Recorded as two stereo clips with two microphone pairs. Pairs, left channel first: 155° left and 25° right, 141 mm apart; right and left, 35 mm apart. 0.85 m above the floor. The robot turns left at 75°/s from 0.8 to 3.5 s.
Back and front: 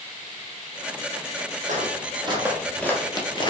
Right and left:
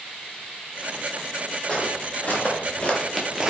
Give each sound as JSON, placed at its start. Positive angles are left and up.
{"t": 1.7, "sound": "footsteps", "azimuth_deg": -20, "distance_m": 1.6}